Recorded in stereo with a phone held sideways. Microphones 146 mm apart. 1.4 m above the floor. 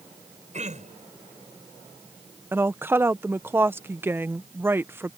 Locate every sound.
0.5 s throat clearing: 55° right (ahead or behind)
2.5 s a woman speaking: 15° right (ahead or behind)